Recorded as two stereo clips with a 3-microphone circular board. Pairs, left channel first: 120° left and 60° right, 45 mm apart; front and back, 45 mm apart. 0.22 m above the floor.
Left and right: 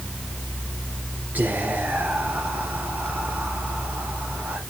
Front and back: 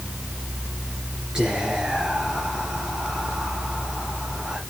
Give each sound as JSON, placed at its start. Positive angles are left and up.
{"t": 1.4, "sound": "whispering", "azimuth_deg": -110, "distance_m": 3.0}